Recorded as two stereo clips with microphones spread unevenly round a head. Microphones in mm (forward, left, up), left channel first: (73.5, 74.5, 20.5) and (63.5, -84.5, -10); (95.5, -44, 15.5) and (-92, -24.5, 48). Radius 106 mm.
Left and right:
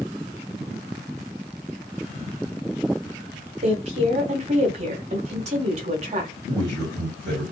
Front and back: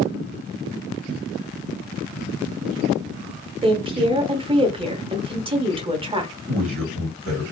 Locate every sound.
3.6 s a woman speaking: 120° right, 1.1 m
6.5 s a man speaking: 175° right, 1.7 m